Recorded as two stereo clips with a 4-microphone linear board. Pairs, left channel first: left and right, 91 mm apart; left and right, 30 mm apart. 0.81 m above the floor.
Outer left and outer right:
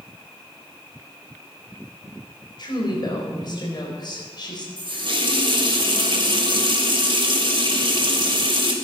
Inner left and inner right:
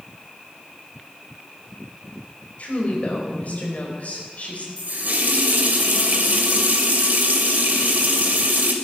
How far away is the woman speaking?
About 4.5 m.